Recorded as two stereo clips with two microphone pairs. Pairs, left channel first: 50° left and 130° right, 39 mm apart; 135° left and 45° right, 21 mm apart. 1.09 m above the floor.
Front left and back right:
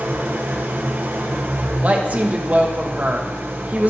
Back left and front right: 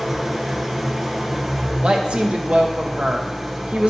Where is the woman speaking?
80° right, 1.0 m.